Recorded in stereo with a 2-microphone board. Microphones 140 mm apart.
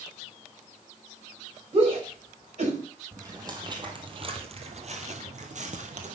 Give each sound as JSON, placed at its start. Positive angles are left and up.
{"t": 1.7, "sound": "a shout", "side_deg": -40, "distance_m": 4.5}
{"t": 3.1, "sound": "footsteps", "side_deg": -25, "distance_m": 2.0}